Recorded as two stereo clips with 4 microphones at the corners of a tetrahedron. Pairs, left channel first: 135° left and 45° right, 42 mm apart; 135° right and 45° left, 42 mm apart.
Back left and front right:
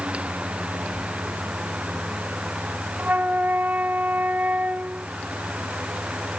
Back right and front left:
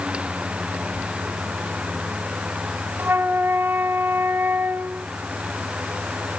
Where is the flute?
5° left, 0.8 m.